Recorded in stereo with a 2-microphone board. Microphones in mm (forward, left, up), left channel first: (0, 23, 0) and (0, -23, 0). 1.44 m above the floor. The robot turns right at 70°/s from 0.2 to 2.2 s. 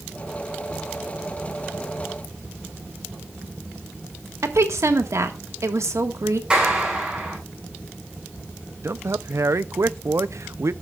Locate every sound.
4.4 s a woman speaking: 80° right, 1.6 m
6.5 s a clap: 20° right (ahead or behind), 9 m
8.8 s a man speaking: 70° right (ahead or behind), 0.5 m